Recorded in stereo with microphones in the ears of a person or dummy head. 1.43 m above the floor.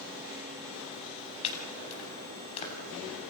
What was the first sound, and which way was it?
Chopping, 35° left (ahead or behind).